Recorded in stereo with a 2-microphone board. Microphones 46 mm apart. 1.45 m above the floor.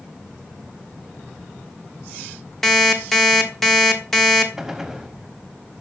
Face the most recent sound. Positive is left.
turn(degrees=-5)  # may be behind; listen again after turning